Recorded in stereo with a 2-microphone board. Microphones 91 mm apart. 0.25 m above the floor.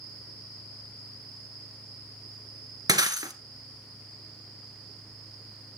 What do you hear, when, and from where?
2.9 s breaking glass: 45° right (ahead or behind), 1.4 m